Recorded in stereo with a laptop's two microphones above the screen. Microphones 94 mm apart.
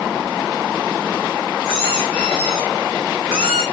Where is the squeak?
5° right (ahead or behind), 4.5 m.